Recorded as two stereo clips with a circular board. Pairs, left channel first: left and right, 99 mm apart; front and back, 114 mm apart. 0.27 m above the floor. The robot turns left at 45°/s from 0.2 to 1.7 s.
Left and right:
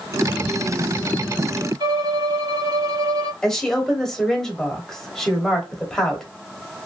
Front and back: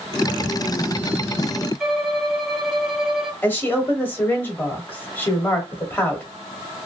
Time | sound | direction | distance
1.8 | a violin | 95° right | 0.8 m
3.4 | a woman speaking | 20° left | 0.9 m